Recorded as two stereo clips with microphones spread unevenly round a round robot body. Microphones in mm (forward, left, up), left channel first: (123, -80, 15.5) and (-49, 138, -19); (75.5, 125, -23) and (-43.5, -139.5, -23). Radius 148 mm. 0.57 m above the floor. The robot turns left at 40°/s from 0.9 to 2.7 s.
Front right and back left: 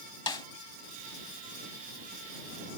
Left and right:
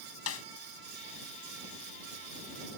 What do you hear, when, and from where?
0.3 s a snare drum: 25° left